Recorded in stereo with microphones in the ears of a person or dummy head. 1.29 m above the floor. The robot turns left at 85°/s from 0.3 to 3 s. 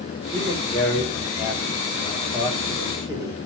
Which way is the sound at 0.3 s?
30° right (ahead or behind).